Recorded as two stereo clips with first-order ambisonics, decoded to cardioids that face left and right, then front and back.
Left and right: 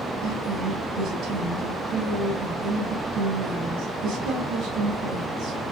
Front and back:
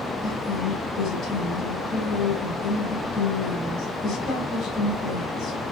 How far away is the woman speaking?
About 2.5 m.